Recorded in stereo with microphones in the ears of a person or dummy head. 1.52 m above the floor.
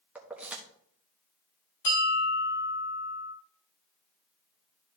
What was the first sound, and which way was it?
Keys jangling, 10° right (ahead or behind).